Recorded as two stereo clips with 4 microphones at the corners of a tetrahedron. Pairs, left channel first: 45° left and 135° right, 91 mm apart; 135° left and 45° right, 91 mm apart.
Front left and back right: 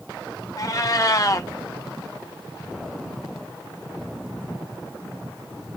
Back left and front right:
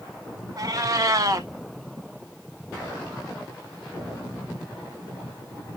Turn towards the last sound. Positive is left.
turn(degrees=0)